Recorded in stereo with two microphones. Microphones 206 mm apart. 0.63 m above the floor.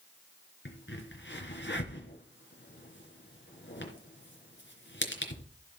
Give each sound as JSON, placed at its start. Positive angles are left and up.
{"t": 0.7, "sound": "a crack", "side_deg": 65, "distance_m": 3.0}